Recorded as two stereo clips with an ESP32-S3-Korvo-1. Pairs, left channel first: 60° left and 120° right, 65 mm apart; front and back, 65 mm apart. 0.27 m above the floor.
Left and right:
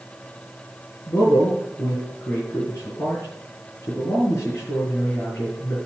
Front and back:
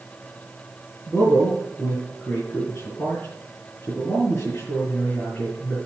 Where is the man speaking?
50° left, 4 m.